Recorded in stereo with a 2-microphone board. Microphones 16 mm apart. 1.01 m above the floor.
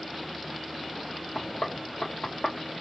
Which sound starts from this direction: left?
Knocking, at 1.4 s.